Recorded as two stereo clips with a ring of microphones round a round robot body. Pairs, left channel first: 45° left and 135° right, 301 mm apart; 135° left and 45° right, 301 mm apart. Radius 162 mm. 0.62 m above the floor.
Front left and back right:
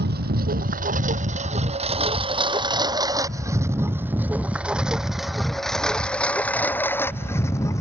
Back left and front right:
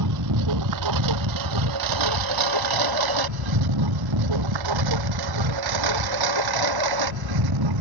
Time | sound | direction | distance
0.0 | a lawn mower | 75° right | ?